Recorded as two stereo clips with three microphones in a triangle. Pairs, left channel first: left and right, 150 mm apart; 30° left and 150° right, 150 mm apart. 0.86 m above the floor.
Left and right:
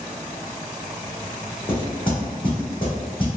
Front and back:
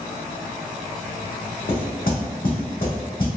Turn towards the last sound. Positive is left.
turn(degrees=35)